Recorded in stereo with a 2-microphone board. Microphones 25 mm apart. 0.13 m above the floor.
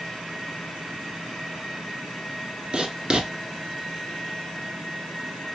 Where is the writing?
45° right (ahead or behind), 1.3 m.